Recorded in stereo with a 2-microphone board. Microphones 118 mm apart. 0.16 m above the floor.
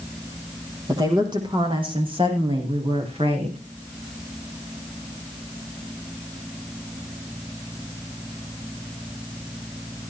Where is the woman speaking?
35° right (ahead or behind), 6 m; by 3.6 s 60° right (ahead or behind), 9 m.